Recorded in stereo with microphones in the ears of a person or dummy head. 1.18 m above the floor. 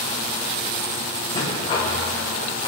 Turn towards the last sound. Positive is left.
turn(degrees=35)  # may be behind; listen again after turning